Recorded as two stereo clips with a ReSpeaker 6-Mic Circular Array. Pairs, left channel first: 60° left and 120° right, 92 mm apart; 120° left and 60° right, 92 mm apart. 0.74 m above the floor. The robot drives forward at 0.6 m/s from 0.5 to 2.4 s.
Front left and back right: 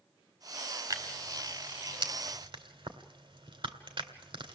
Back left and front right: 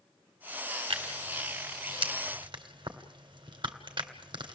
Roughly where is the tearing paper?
Right.